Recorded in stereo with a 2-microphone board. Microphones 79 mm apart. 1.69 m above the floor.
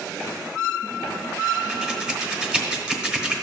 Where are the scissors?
10° right (ahead or behind), 1.0 m.